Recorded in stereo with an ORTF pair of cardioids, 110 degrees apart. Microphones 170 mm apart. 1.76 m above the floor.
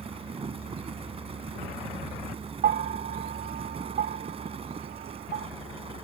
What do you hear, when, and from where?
0.0 s a fan: 35° right
2.6 s a bell: 60° right